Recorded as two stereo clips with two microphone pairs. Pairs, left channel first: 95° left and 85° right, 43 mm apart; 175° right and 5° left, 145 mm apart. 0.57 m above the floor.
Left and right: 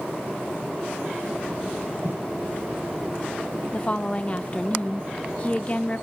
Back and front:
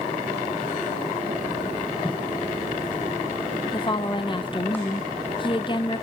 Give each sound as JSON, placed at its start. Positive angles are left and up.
{"t": 2.0, "sound": "footsteps", "azimuth_deg": -120, "distance_m": 1.8}
{"t": 3.7, "sound": "a woman speaking", "azimuth_deg": 145, "distance_m": 0.8}